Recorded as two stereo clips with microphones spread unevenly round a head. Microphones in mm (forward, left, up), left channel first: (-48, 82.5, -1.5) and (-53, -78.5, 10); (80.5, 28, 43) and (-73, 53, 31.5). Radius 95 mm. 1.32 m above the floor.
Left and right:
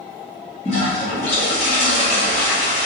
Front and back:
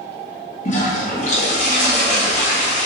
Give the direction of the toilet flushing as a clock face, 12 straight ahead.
11 o'clock.